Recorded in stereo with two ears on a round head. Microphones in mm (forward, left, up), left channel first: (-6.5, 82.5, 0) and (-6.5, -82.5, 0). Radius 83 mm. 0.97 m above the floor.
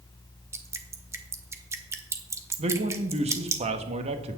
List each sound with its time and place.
0.5 s dripping: 15° right (ahead or behind), 1.0 m
2.6 s a man speaking: 35° right (ahead or behind), 1.2 m